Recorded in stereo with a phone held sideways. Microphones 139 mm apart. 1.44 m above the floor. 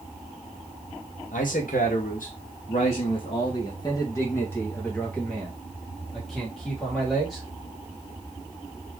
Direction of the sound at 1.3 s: 80° left.